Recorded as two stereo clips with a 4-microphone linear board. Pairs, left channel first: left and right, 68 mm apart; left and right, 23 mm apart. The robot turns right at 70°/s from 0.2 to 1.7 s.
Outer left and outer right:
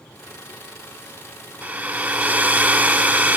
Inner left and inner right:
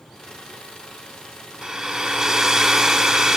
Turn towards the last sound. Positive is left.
turn(degrees=-25)  # may be behind; listen again after turning